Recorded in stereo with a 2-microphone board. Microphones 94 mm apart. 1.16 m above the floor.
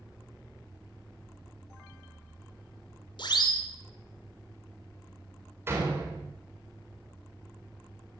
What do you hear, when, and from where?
3.2 s a siren: 60° left (ahead or behind), 3 m
5.7 s a door slam: 30° right (ahead or behind), 3.5 m